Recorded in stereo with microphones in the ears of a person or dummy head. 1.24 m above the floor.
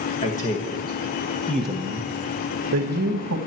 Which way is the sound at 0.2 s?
35° left (ahead or behind).